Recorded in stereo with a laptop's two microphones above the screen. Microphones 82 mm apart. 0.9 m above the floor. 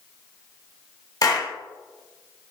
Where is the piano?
I don't hear a piano.